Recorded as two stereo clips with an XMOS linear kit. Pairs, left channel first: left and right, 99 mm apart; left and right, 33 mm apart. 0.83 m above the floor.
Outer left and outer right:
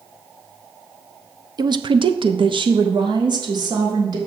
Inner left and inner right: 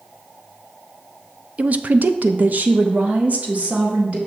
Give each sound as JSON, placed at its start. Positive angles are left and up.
{"t": 1.6, "sound": "a woman speaking", "side_deg": -40, "distance_m": 0.6}